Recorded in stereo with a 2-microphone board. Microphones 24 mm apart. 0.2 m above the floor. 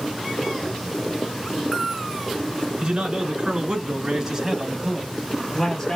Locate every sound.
2.8 s a man speaking: 45° right (ahead or behind), 2.5 m; by 6.0 s 25° left (ahead or behind), 1.5 m